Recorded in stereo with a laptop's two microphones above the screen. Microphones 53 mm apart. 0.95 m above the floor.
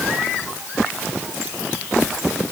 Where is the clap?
I don't hear a clap.